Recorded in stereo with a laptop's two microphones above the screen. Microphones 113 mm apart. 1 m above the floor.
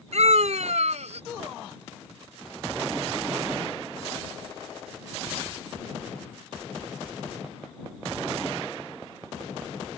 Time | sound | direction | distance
0.1 | a scream | 75° right (ahead or behind) | ?